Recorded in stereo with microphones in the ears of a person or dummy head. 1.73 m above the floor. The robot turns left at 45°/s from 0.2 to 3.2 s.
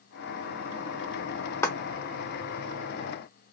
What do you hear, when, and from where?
1.6 s a clap: 15° left (ahead or behind), 0.7 m; by 1.8 s 10° left (ahead or behind), 0.7 m